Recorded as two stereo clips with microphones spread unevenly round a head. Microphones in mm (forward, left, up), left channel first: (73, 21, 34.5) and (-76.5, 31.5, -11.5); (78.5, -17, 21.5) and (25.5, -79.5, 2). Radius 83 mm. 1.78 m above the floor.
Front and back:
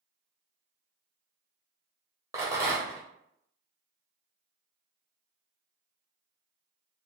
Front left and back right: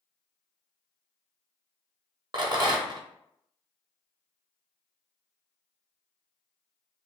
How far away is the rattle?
About 0.9 m.